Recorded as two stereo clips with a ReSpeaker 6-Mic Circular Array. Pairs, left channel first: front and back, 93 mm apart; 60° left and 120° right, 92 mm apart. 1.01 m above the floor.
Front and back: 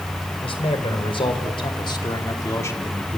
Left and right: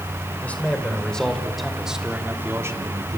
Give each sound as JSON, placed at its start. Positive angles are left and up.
{"t": 0.4, "sound": "a man speaking", "azimuth_deg": -15, "distance_m": 5.0}